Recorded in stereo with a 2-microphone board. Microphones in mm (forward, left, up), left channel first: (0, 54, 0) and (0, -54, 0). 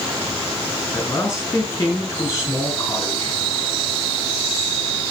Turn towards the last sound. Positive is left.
turn(degrees=20)  # may be behind; listen again after turning